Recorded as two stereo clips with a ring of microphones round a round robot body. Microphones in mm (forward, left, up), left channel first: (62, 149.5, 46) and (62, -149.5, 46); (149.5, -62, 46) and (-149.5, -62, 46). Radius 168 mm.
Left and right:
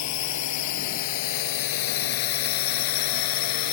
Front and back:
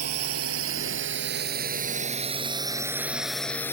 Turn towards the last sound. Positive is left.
turn(degrees=85)